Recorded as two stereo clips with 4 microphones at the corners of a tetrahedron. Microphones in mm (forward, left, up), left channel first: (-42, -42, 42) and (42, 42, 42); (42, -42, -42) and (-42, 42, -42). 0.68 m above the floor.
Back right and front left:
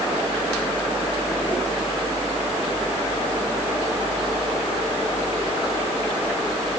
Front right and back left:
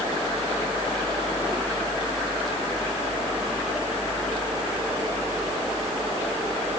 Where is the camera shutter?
I don't hear a camera shutter.